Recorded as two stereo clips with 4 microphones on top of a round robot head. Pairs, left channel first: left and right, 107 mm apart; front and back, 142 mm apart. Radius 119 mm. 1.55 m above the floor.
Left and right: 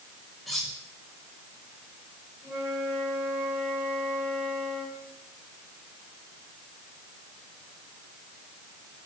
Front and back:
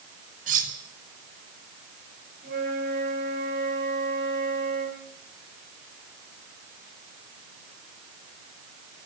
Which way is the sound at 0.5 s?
Straight behind.